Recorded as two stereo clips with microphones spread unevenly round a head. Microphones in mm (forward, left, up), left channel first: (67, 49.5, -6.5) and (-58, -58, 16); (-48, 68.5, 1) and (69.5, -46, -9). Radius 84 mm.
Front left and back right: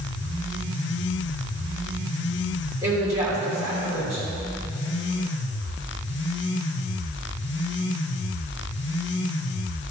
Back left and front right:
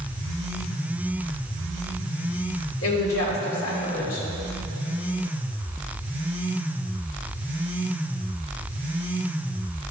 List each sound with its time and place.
2.8 s a woman speaking: 145° left, 3 m